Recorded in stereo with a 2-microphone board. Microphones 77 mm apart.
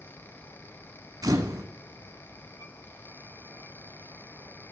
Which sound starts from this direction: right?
A camera shutter, at 1.2 s.